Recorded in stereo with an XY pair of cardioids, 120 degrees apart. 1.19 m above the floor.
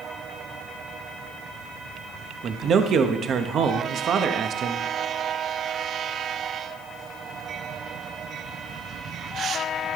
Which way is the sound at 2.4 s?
55° right.